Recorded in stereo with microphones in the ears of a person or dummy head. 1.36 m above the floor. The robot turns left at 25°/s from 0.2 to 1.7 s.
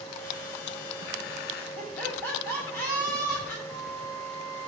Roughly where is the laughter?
Centre.